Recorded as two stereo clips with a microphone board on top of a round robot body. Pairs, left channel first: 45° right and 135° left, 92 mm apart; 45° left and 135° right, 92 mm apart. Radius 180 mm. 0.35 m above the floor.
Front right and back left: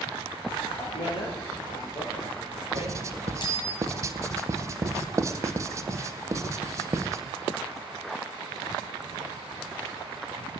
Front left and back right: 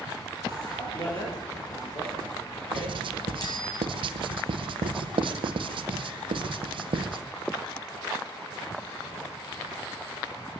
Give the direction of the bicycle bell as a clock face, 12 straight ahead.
12 o'clock.